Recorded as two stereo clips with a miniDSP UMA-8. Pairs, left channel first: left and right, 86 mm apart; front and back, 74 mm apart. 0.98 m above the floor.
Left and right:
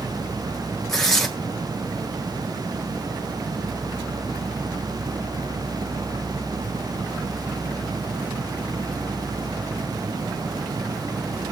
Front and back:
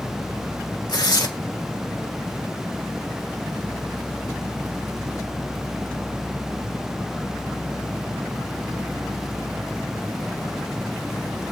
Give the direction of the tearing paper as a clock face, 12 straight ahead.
12 o'clock.